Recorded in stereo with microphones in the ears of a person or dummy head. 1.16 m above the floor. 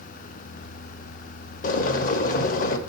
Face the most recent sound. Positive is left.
turn(degrees=50)  # may be behind; listen again after turning